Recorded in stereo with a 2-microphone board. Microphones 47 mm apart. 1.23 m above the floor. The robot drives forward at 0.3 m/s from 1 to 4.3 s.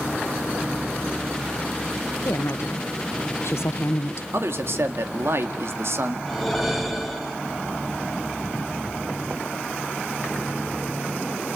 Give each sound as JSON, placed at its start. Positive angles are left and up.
{"t": 2.2, "sound": "a woman speaking", "side_deg": 60, "distance_m": 1.4}
{"t": 4.3, "sound": "a man speaking", "side_deg": -60, "distance_m": 2.0}
{"t": 6.3, "sound": "a whoosh", "side_deg": 0, "distance_m": 3.0}